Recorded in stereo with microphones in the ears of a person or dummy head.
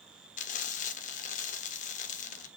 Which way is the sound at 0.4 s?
35° left (ahead or behind).